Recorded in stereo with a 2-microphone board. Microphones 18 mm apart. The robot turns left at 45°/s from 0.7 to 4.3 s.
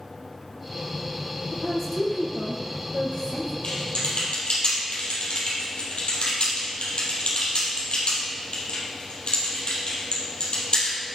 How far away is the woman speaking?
About 3 m.